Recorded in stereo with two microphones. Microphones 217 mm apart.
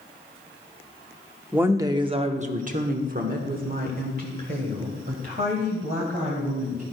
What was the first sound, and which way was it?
A woman speaking, 5° right (ahead or behind).